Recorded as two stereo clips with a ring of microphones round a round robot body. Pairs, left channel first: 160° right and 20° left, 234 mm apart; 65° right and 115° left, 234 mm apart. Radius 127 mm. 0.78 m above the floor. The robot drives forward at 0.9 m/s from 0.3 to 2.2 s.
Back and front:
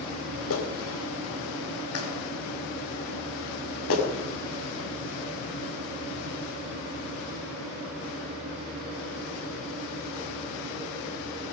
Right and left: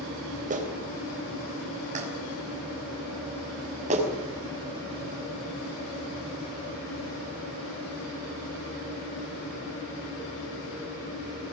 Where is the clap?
170° left, 3.5 m; by 4.0 s 175° left, 5 m.